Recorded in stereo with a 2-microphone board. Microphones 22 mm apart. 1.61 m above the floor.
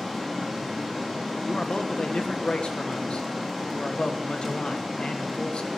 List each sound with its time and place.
0.0 s running water: 5° left (ahead or behind), 3 m
1.4 s a man speaking: 45° left (ahead or behind), 1.2 m